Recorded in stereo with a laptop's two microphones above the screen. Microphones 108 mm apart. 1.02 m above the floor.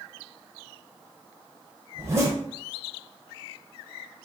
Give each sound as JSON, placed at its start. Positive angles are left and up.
{"t": 1.9, "sound": "a zipper", "side_deg": -30, "distance_m": 0.8}